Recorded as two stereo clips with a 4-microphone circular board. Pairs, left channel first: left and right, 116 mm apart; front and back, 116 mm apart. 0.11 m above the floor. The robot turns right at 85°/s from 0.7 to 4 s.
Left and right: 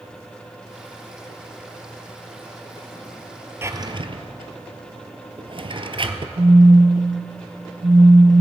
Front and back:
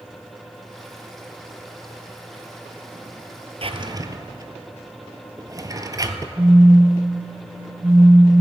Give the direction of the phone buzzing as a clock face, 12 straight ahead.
4 o'clock.